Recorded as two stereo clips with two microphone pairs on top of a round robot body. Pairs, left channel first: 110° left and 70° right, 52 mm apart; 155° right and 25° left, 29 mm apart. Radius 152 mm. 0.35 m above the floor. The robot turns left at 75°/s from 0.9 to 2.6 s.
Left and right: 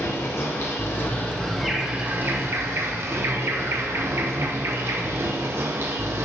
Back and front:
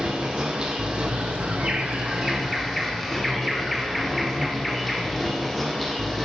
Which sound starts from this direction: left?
An insect, at 0.0 s.